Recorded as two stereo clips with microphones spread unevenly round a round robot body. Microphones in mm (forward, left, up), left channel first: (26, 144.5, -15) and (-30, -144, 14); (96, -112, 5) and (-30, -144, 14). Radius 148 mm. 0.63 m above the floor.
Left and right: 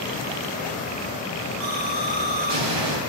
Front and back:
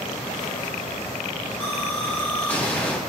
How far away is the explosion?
About 5 m.